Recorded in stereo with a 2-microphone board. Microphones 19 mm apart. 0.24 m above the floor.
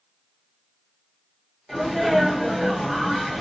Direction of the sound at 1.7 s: 5° right (ahead or behind).